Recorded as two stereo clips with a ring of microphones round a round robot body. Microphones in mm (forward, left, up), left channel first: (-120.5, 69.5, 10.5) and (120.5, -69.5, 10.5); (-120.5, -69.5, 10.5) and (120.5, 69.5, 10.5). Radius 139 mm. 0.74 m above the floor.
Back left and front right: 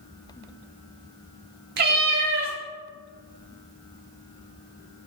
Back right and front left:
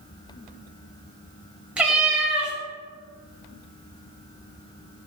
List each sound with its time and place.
1.8 s a cat meowing: 55° right, 0.6 m